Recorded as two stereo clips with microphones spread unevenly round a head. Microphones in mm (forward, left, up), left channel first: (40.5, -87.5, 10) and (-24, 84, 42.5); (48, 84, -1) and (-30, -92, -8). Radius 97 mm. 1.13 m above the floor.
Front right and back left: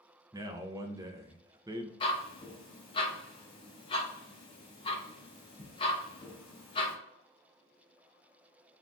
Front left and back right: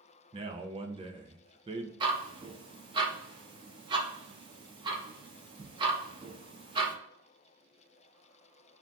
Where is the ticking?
115° right, 0.5 m.